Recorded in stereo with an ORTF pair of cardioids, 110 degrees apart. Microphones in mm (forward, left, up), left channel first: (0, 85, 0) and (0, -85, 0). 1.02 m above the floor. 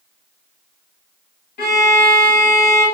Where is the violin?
60° left, 1.5 m.